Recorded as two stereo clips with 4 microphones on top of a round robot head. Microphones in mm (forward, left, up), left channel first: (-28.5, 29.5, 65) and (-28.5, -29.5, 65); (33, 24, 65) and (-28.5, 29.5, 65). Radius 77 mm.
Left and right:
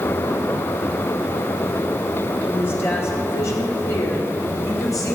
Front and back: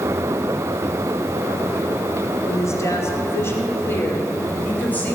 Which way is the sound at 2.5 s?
30° left.